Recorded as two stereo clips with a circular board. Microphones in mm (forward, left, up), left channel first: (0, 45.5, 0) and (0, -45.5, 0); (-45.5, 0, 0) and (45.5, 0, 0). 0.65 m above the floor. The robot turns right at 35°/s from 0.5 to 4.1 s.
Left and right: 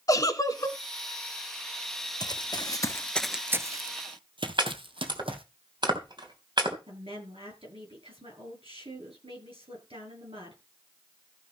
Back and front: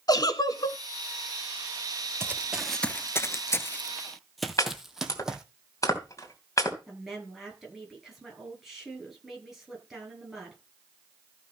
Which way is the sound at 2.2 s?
60° left.